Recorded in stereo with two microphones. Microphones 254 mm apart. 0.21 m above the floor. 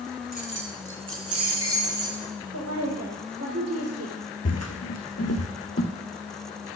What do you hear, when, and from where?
0.3 s keys jangling: 35° right (ahead or behind), 1.5 m; by 2.3 s 60° right (ahead or behind), 3.5 m
2.5 s a woman speaking: 75° right (ahead or behind), 5 m
4.5 s footsteps: 80° left, 0.8 m; by 5.9 s 60° left (ahead or behind), 1.4 m